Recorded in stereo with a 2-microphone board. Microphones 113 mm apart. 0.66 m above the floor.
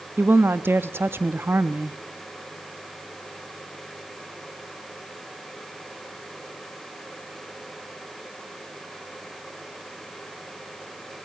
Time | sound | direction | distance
0.2 | a woman speaking | 20° right (ahead or behind) | 0.6 m